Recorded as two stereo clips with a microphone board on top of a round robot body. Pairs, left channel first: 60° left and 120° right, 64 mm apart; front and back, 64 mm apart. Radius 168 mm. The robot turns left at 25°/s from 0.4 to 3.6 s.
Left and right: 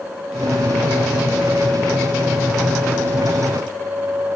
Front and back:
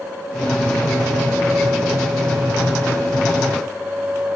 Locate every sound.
Only background noise.